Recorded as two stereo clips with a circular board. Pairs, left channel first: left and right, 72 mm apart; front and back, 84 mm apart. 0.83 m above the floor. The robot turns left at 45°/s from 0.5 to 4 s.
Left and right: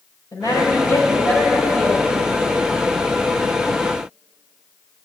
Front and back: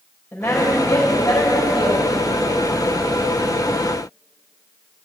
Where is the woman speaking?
70° left, 4 m; by 2.0 s straight ahead, 4 m.